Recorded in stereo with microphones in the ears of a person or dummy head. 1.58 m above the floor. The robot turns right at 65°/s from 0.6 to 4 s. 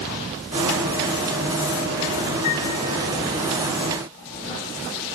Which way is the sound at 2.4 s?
35° left (ahead or behind).